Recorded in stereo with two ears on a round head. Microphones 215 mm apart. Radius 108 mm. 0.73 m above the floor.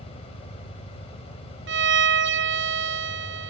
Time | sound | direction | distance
0.0 | an engine running | 60° left (ahead or behind) | 3.5 m
1.7 | a violin | 45° right (ahead or behind) | 0.7 m